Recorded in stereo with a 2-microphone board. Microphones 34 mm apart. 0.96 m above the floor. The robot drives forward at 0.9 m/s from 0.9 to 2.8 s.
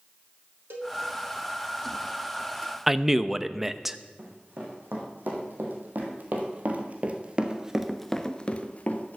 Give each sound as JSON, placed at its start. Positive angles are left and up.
{"t": 0.7, "sound": "a cowbell", "side_deg": -80, "distance_m": 1.9}
{"t": 2.9, "sound": "a man speaking", "side_deg": -5, "distance_m": 0.6}
{"t": 4.2, "sound": "running footsteps", "side_deg": -65, "distance_m": 4.5}